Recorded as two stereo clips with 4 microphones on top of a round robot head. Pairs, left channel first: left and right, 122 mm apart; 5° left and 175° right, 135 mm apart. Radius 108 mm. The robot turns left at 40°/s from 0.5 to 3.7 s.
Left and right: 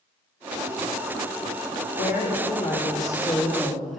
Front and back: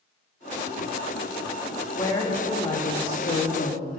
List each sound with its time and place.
1.9 s a woman speaking: 70° left, 1.5 m; by 4.0 s straight ahead, 1.5 m